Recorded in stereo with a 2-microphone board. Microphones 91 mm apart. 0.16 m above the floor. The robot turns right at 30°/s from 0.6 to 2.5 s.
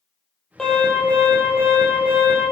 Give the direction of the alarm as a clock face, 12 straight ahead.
12 o'clock.